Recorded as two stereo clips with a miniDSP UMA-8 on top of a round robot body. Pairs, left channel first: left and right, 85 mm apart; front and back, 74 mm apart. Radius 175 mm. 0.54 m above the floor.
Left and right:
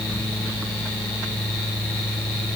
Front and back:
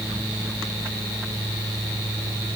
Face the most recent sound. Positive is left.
No sound to turn to.